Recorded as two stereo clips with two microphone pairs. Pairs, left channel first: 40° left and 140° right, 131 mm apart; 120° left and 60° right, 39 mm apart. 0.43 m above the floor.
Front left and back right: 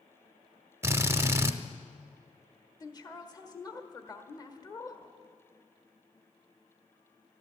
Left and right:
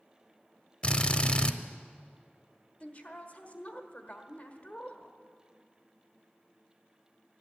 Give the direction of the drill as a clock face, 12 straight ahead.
6 o'clock.